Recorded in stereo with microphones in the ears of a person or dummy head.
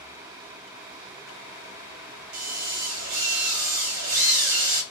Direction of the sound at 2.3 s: 70° right (ahead or behind).